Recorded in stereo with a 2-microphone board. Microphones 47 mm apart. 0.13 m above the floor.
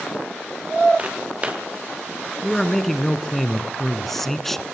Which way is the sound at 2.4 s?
5° left (ahead or behind).